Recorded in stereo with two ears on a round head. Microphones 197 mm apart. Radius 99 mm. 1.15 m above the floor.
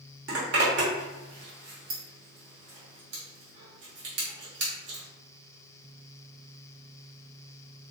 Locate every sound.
0.3 s a zipper: 55° right (ahead or behind), 1.1 m